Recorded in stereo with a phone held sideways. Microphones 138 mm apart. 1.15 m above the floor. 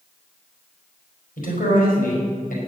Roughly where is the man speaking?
Left.